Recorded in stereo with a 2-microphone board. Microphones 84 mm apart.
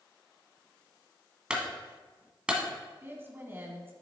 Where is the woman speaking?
25° right (ahead or behind), 1.4 m.